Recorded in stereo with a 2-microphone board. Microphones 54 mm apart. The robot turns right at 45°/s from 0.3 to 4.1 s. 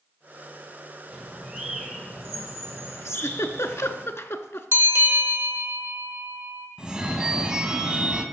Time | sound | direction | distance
1.1 | a bird | 50° right | 2 m
3.0 | a giggle | 60° left (ahead or behind) | 0.6 m
4.7 | a bell | 50° right (ahead or behind) | 1.2 m
6.8 | a phone ringing | 20° right (ahead or behind) | 0.8 m